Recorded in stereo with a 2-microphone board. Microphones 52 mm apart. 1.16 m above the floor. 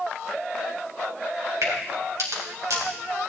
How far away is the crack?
About 3.5 m.